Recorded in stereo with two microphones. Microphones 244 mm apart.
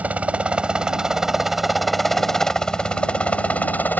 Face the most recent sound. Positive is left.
turn(degrees=5)  # may be behind; listen again after turning